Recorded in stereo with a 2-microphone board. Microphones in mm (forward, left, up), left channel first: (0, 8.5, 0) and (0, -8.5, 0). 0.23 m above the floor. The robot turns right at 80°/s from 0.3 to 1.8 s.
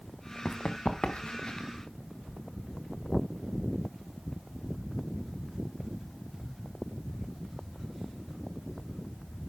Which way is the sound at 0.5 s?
45° left (ahead or behind).